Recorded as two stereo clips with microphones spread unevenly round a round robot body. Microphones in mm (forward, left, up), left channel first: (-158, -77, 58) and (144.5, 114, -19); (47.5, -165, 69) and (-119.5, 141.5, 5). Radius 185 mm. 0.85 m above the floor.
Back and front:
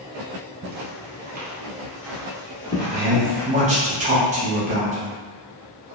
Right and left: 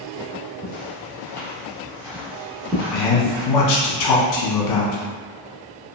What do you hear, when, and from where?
0.6 s footsteps: 10° right, 1.0 m; by 3.5 s 175° right, 1.3 m
2.9 s a man speaking: 25° right, 0.7 m